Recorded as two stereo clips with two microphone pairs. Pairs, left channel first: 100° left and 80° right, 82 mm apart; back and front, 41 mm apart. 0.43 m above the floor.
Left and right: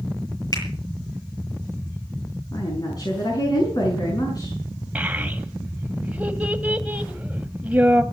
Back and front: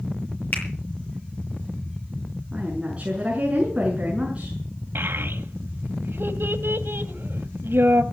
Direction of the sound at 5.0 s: 10° right.